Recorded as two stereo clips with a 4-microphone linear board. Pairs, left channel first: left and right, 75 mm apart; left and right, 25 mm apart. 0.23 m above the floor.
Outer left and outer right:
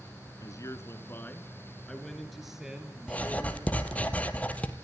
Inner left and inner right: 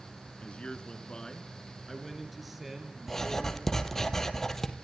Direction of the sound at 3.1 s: 20° left (ahead or behind).